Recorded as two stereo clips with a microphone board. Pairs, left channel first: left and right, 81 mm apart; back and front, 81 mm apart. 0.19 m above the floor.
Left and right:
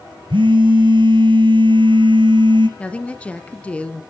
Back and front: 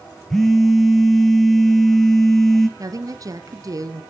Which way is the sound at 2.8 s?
20° left.